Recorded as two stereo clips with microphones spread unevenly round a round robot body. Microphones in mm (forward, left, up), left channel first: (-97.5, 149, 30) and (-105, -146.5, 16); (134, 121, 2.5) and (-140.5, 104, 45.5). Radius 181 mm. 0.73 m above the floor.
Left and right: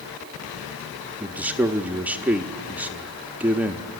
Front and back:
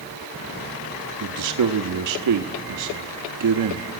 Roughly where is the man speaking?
Behind.